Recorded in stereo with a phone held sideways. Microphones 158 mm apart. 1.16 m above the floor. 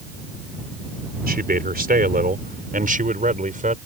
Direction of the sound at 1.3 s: 75° right (ahead or behind).